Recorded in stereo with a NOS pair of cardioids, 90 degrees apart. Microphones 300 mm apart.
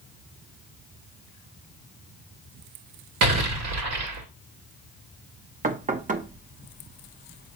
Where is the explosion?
55° right, 2.0 m.